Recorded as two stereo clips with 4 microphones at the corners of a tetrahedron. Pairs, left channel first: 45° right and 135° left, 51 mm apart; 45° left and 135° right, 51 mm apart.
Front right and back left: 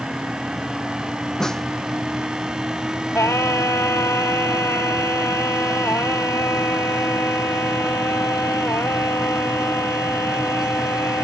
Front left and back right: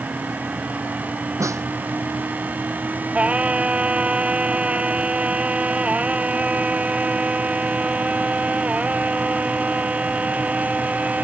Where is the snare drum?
125° right.